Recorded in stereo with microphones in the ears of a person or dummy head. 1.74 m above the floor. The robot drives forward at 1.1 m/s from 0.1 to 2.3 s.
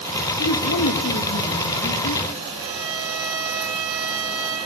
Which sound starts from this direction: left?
A man speaking, at 0.4 s.